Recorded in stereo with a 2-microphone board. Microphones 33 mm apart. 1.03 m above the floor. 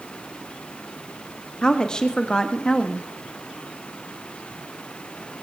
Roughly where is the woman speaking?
Left.